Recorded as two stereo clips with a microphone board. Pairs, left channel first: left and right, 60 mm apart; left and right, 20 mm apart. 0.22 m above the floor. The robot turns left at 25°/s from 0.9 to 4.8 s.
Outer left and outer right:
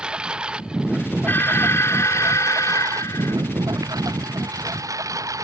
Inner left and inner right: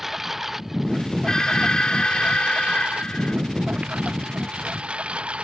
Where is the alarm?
140° left; by 3.4 s 90° left.